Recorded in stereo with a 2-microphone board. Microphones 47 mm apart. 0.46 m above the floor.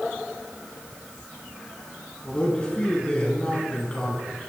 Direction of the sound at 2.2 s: 20° left (ahead or behind).